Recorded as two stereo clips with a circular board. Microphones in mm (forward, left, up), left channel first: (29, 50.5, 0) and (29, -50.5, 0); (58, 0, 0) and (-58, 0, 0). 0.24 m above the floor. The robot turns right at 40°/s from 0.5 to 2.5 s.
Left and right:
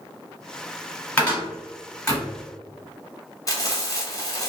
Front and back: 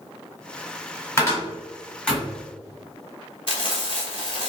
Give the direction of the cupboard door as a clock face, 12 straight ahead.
11 o'clock.